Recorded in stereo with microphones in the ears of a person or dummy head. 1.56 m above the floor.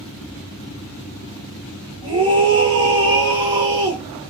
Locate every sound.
2.0 s a scream: 25° right (ahead or behind), 1.0 m